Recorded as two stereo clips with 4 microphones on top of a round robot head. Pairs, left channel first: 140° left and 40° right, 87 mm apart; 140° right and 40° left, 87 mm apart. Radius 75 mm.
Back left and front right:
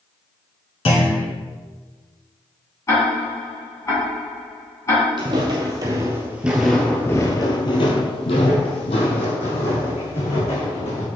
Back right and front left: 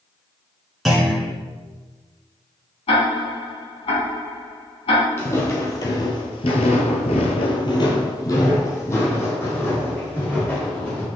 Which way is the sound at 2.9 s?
160° right.